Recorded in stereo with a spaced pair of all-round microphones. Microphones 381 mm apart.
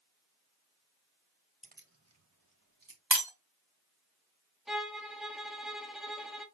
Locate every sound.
1.6 s keys jangling: 15° right (ahead or behind), 0.6 m; by 3.0 s 60° right (ahead or behind), 1.5 m
3.1 s breaking glass: 70° right (ahead or behind), 1.8 m
4.7 s a violin: centre (ahead or behind), 0.7 m